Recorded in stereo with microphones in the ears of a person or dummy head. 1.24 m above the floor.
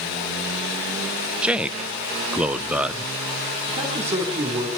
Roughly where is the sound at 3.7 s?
Right.